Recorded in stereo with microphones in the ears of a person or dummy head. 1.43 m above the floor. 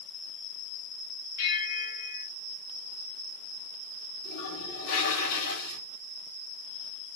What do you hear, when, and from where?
1.4 s a bell: 70° left (ahead or behind), 4 m
4.2 s a toilet flushing: 65° left (ahead or behind), 6.5 m